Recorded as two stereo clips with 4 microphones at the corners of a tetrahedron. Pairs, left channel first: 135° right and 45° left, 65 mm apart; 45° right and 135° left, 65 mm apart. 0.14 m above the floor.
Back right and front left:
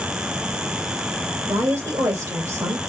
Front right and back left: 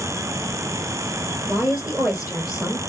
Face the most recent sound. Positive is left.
turn(degrees=50)